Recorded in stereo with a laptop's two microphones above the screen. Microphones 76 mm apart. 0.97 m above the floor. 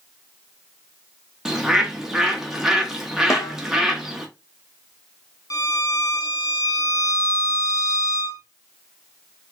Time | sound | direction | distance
1.4 | a bird | 5° right (ahead or behind) | 0.7 m
3.3 | a snare drum | 40° left (ahead or behind) | 0.8 m
5.5 | a violin | 50° left (ahead or behind) | 0.6 m